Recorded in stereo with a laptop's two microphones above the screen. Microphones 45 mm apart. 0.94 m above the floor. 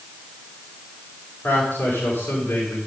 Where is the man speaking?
50° left (ahead or behind), 5 m.